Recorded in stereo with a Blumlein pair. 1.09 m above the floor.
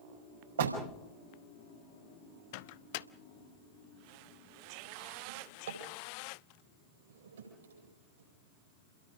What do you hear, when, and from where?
0.6 s a door slam: 65° right, 5 m
2.5 s a microwave: 50° left, 0.7 m
5.3 s a drawer: 65° right, 8.5 m